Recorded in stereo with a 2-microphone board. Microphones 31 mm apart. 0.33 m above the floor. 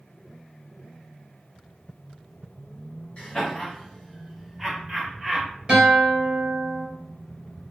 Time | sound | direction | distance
3.2 | laughter | 35° left (ahead or behind) | 1.2 m
5.7 | a guitar | 30° right (ahead or behind) | 1.7 m